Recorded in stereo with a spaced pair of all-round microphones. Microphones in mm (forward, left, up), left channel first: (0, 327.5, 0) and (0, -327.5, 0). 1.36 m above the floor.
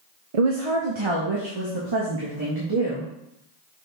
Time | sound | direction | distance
0.3 | a woman speaking | 55° right (ahead or behind) | 0.7 m